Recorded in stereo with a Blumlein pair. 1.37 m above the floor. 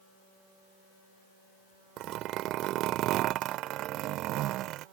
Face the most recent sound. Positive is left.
turn(degrees=-35)